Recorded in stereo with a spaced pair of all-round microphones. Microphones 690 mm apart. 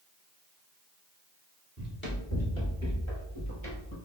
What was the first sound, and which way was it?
Running footsteps, 15° left (ahead or behind).